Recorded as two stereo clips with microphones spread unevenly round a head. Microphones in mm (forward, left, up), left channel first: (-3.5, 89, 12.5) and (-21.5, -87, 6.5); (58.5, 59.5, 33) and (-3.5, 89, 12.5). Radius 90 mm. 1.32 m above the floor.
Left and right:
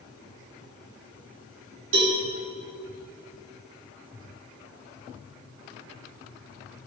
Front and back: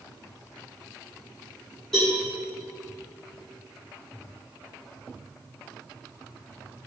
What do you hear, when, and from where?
1.9 s a cowbell: 110° right, 3.5 m